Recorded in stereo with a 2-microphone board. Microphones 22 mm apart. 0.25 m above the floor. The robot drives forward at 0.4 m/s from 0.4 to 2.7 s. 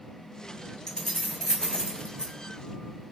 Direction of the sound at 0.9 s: 30° left (ahead or behind).